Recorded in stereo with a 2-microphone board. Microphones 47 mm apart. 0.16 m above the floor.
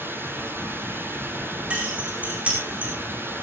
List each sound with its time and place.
0.0 s running water: 50° right (ahead or behind), 4 m
1.7 s keys jangling: 35° right (ahead or behind), 8 m